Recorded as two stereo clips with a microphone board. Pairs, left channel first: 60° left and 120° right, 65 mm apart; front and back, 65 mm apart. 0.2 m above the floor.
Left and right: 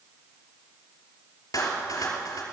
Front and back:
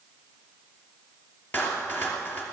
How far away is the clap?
About 3 m.